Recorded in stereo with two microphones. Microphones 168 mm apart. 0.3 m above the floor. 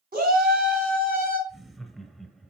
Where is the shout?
60° right (ahead or behind), 3 m.